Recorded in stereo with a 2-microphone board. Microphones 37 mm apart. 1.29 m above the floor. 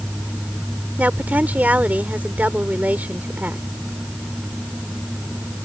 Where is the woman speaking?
50° right (ahead or behind).